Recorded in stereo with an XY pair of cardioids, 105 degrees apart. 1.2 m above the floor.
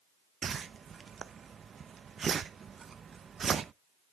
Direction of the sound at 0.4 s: 40° right.